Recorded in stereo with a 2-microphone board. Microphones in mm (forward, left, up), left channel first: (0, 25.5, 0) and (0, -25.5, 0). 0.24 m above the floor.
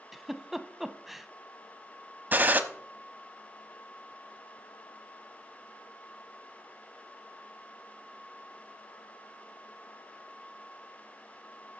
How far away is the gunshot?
About 0.9 m.